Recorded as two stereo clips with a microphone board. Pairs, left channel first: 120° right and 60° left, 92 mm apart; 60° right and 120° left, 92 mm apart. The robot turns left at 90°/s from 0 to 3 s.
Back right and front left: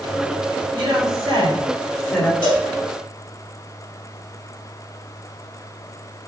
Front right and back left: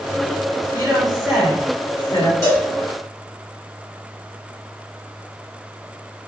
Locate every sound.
0.7 s a woman speaking: 90° left, 1.7 m; by 2.3 s 50° right, 1.7 m
2.4 s a cowbell: 110° right, 1.7 m; by 2.7 s 135° right, 1.7 m